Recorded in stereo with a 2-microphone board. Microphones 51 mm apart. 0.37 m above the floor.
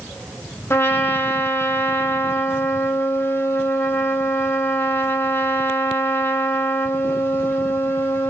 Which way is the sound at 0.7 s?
50° left (ahead or behind).